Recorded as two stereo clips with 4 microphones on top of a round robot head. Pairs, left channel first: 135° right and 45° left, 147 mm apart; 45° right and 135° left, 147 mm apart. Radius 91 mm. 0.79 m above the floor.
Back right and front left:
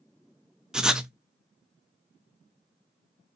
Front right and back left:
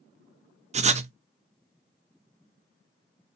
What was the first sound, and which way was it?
Writing, 130° left.